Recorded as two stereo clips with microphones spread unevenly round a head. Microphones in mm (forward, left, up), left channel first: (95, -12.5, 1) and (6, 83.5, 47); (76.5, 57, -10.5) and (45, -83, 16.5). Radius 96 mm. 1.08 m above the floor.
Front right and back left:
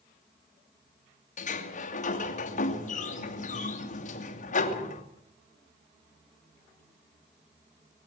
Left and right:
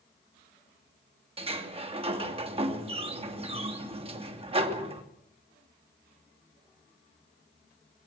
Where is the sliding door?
50° right, 2.5 m.